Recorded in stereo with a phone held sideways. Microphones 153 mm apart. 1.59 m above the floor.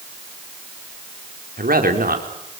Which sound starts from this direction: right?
A man speaking, at 1.6 s.